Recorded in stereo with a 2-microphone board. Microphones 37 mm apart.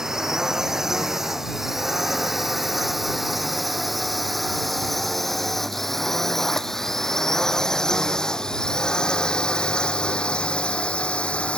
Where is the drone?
15° right (ahead or behind); by 11.6 s 35° left (ahead or behind).